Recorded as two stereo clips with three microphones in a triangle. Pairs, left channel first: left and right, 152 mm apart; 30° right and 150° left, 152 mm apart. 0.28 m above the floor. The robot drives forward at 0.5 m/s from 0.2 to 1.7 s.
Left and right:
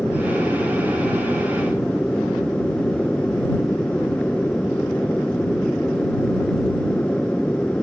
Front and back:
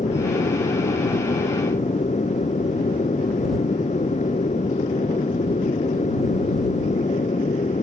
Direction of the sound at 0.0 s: 5° left.